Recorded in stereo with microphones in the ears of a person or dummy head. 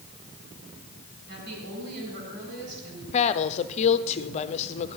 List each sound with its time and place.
1.3 s a woman speaking: 60° right (ahead or behind), 8 m
3.1 s a woman speaking: 35° left (ahead or behind), 0.7 m